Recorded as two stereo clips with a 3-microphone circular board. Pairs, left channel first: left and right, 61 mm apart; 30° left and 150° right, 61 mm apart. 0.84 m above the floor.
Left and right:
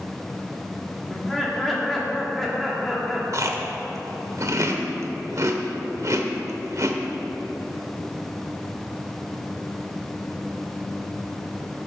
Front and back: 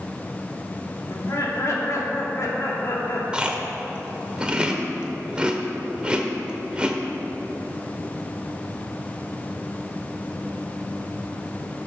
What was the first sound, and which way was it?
Laughter, straight ahead.